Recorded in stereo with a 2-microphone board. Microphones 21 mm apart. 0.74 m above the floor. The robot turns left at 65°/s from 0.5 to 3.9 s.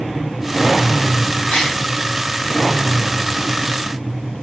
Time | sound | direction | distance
1.5 | a gasp | 85° left | 5 m